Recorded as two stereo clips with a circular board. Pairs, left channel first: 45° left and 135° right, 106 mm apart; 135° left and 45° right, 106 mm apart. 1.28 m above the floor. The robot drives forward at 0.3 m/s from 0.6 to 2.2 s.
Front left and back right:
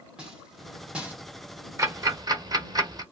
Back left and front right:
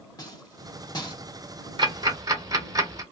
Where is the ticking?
80° right, 0.8 m; by 3.0 s 90° right, 0.7 m.